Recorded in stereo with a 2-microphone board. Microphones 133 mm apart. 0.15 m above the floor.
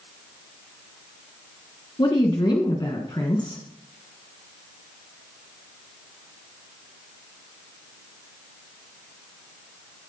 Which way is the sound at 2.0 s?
35° left (ahead or behind).